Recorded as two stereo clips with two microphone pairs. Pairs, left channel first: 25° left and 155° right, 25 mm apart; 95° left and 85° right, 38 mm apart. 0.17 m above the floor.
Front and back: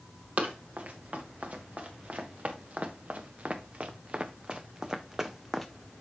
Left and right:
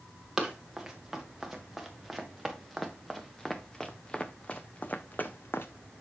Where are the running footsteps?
170° right, 2.5 m; by 5.7 s 110° left, 0.8 m.